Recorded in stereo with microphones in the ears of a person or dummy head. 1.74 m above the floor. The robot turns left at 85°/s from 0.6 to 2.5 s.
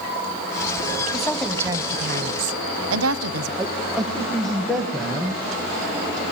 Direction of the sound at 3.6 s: 5° left (ahead or behind).